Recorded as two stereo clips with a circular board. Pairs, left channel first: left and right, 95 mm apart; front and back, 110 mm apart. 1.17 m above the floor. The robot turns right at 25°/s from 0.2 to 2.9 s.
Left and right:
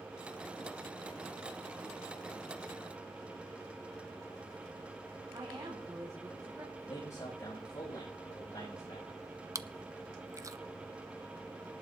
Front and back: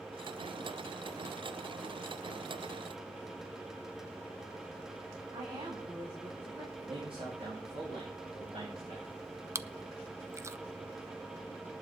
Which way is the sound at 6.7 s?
140° left.